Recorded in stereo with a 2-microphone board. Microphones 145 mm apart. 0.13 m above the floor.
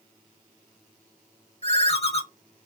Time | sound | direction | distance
1.6 | a ringtone | 40° left (ahead or behind) | 0.8 m